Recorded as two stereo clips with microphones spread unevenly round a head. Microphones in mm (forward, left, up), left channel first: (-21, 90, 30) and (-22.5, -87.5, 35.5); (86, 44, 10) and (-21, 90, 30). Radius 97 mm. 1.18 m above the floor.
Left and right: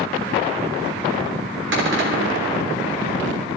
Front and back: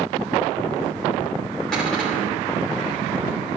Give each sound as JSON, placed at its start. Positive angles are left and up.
{"t": 1.7, "sound": "a cupboard door", "azimuth_deg": -110, "distance_m": 3.0}